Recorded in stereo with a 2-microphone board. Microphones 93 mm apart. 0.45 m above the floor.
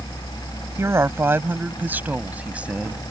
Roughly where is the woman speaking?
Right.